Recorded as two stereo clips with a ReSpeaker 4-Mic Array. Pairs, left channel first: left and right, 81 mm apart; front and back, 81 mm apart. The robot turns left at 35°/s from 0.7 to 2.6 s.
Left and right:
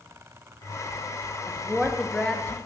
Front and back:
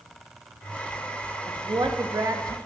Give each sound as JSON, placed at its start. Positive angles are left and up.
{"t": 1.5, "sound": "a woman speaking", "azimuth_deg": -170, "distance_m": 0.9}